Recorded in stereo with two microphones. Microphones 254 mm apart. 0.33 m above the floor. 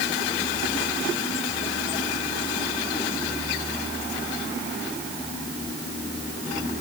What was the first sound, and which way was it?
Only background noise.